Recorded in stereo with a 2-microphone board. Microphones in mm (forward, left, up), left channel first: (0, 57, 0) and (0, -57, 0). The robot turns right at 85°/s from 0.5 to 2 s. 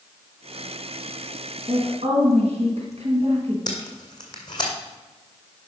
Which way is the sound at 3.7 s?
40° left (ahead or behind).